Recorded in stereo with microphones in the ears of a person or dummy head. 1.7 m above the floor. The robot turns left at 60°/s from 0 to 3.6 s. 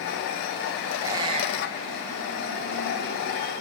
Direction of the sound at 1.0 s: 10° right (ahead or behind).